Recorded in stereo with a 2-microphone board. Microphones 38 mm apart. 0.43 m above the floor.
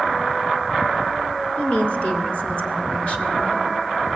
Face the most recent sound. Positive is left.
turn(degrees=35)  # may be behind; listen again after turning